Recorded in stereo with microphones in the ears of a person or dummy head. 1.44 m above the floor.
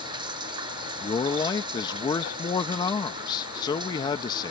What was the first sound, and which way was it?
Running water, 25° right (ahead or behind).